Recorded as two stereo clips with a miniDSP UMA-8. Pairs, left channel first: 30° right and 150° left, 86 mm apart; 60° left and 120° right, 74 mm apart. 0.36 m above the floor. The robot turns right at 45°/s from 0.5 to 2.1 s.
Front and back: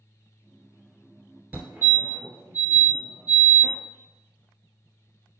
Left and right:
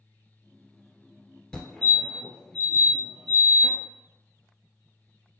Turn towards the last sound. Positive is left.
turn(degrees=150)